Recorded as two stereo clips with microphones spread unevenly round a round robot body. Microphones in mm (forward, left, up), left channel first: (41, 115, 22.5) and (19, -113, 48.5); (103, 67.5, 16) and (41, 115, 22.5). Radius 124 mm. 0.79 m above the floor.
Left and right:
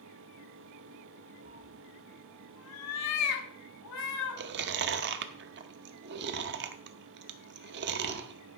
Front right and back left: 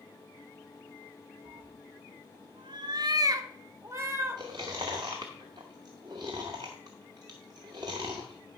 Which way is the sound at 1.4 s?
160° right.